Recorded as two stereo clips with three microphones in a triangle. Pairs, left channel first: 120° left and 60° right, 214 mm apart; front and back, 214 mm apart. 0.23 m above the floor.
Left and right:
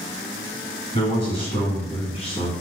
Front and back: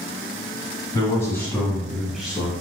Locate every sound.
0.9 s a man speaking: 70° left, 1.7 m; by 2.5 s 105° left, 1.3 m